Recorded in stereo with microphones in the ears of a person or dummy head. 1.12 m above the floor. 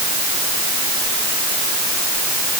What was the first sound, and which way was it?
Only background noise.